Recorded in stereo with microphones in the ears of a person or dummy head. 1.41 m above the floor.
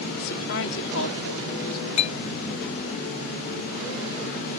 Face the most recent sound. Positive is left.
turn(degrees=40)  # may be behind; listen again after turning